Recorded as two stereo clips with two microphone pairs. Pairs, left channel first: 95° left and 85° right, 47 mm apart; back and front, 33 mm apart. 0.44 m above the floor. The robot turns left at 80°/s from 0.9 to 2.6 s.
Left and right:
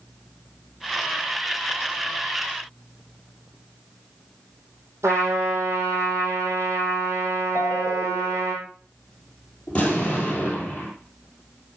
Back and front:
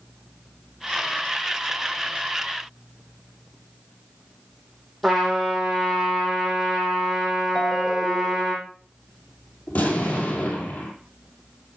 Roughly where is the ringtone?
Left.